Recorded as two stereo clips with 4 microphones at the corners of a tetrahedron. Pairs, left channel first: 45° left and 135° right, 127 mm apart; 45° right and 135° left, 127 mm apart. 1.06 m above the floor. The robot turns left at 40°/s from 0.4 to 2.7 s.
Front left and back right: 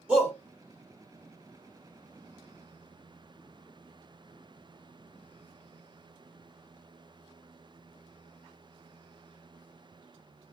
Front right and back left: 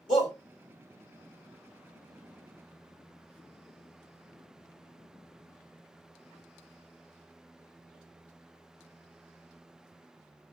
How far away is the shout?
About 3 m.